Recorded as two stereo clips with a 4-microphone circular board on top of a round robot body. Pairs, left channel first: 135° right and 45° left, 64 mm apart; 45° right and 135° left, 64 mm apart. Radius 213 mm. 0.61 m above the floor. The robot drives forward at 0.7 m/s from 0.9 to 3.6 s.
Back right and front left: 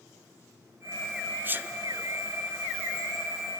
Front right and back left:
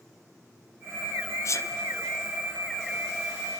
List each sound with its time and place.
1.4 s a sneeze: 10° right, 2 m; by 1.7 s 15° right, 1.9 m